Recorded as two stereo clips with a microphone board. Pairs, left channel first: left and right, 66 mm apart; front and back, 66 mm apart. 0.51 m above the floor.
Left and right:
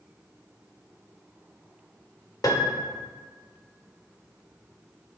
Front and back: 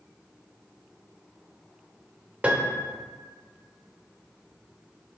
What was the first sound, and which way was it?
A piano, 110° left.